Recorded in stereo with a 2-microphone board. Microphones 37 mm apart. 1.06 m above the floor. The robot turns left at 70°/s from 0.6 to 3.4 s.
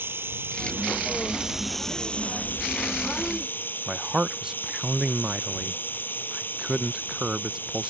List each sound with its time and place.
0.0 s running water: 100° right; by 7.9 s 60° left
3.9 s a man speaking: 20° right (ahead or behind)